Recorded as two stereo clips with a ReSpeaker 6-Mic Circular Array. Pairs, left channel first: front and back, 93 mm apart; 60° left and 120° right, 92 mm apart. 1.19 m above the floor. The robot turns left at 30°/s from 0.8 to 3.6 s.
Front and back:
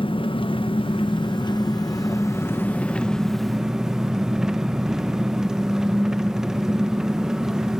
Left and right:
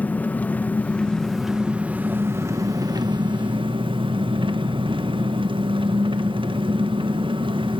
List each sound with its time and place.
0.0 s an engine running: 15° right, 0.9 m; by 7.8 s 95° right, 0.9 m